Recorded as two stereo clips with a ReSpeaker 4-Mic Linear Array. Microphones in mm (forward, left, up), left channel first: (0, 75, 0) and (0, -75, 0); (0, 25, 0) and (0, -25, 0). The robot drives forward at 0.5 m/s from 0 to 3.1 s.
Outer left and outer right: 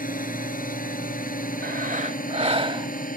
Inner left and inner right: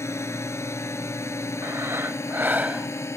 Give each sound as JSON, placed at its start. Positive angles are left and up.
{"t": 0.0, "sound": "a drone", "side_deg": 80}
{"t": 1.6, "sound": "breathing", "side_deg": -80}